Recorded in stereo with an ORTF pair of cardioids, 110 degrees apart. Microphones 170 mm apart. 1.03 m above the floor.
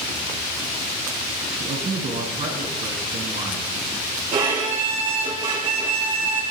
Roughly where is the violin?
Ahead right.